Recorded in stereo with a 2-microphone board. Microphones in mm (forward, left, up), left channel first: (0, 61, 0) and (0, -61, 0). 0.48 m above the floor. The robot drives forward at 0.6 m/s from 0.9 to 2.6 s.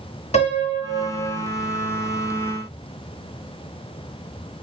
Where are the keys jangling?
I don't hear keys jangling.